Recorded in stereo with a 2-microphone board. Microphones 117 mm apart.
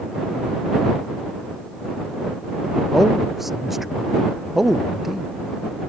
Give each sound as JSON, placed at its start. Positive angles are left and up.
{"t": 2.9, "sound": "a man speaking", "side_deg": 0}